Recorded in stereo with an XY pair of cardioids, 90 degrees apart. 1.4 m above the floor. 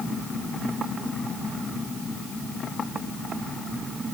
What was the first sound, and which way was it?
Only background noise.